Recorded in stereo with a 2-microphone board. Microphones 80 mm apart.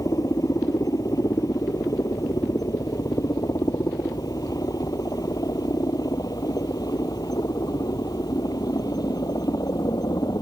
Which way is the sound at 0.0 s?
45° left (ahead or behind).